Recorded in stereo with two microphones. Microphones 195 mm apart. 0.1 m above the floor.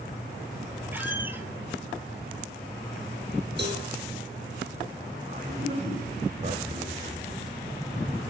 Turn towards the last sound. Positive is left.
turn(degrees=-40)  # may be behind; listen again after turning